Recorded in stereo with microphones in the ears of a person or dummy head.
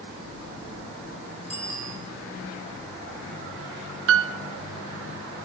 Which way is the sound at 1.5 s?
10° right (ahead or behind).